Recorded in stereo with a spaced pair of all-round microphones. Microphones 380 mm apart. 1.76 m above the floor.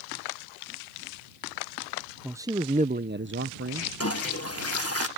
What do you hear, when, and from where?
2.2 s a man speaking: 5° right (ahead or behind); by 3.9 s 35° right (ahead or behind)
4.0 s a toilet flushing: 40° left (ahead or behind)